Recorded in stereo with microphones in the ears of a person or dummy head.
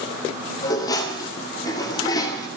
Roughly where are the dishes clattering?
Left.